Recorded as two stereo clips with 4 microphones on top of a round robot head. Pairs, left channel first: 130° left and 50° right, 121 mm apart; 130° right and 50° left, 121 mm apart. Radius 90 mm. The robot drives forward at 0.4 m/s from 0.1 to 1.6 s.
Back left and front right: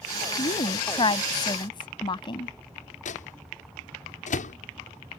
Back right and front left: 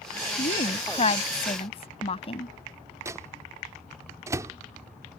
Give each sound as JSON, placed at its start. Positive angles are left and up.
{"t": 0.4, "sound": "a woman speaking", "azimuth_deg": -175}
{"t": 3.0, "sound": "a microwave", "azimuth_deg": 115}